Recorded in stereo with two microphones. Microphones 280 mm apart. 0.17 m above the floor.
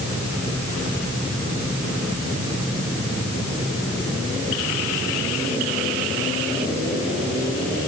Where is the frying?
No frying in this recording.